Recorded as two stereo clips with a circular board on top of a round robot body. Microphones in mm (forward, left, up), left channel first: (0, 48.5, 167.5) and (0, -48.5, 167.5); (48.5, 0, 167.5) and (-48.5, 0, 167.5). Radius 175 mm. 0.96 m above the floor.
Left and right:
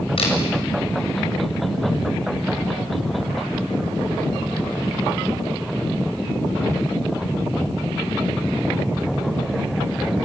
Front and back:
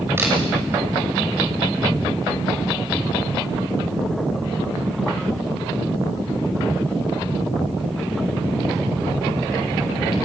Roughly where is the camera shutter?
Behind left.